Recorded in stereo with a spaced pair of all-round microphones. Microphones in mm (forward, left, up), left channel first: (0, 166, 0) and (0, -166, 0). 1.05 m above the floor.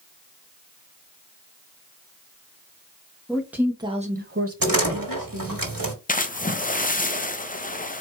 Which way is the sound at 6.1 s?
25° left (ahead or behind).